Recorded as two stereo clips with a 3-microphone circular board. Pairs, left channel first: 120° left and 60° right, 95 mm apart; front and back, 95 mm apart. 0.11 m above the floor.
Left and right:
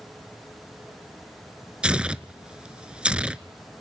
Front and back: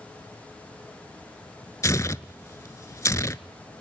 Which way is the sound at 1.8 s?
10° left.